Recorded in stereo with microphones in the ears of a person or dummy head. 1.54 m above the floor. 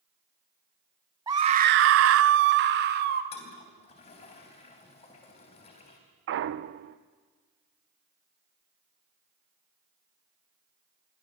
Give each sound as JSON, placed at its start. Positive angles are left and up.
{"t": 1.3, "sound": "a scream", "side_deg": -15, "distance_m": 0.9}
{"t": 3.3, "sound": "a toilet flushing", "side_deg": 35, "distance_m": 3.5}
{"t": 6.3, "sound": "a clunk", "side_deg": -65, "distance_m": 0.8}